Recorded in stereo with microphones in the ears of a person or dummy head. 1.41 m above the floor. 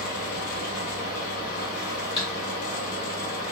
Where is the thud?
20° left (ahead or behind), 2.0 m.